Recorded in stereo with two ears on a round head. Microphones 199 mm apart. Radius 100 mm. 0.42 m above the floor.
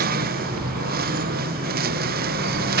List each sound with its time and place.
0.0 s a lawn mower: 40° right (ahead or behind)